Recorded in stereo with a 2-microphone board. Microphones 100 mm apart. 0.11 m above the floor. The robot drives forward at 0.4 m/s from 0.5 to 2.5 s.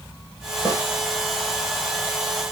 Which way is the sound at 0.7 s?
40° right (ahead or behind).